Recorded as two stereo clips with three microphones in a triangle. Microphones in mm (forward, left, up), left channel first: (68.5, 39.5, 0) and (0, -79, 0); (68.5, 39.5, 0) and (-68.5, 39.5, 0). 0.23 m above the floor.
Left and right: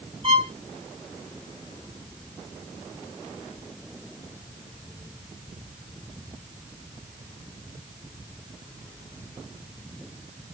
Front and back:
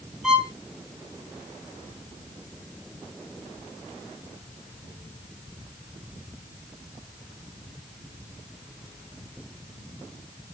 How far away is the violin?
About 1.7 m.